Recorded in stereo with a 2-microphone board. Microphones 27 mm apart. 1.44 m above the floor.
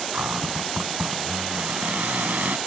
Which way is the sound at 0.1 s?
90° right.